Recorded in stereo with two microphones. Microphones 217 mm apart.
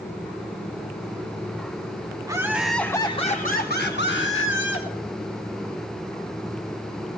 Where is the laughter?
15° right (ahead or behind), 1.7 m; by 4.9 s 65° left (ahead or behind), 3 m.